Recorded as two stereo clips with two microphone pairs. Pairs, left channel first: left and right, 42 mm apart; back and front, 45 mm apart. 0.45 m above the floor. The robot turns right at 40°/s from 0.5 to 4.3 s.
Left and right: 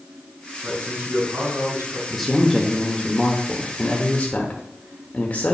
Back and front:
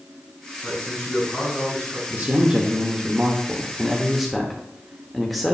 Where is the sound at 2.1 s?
Straight ahead, 0.9 m; by 5.5 s 90° left, 0.9 m.